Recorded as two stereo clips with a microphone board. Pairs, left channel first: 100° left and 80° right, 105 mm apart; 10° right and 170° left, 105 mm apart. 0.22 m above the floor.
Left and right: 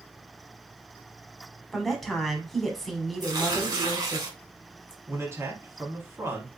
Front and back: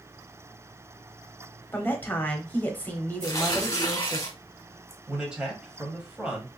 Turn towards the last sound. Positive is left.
turn(degrees=-115)